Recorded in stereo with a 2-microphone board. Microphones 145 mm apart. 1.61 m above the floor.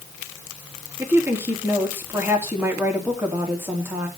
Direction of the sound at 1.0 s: 15° right (ahead or behind).